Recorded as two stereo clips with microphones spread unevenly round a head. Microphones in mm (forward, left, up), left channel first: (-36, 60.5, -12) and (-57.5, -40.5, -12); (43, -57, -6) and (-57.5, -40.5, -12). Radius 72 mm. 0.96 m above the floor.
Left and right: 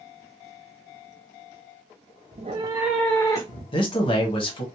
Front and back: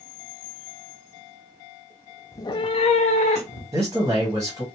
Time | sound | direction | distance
2.3 | a cat meowing | 70° right | 0.5 m
3.7 | a man speaking | 105° left | 1.1 m